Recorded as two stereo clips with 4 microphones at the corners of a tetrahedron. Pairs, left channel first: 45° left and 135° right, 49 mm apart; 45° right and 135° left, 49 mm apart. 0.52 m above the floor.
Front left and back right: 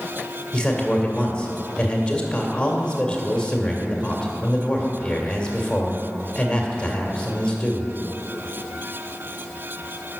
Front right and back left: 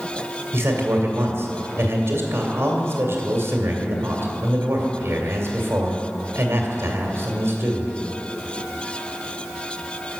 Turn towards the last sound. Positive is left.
turn(degrees=120)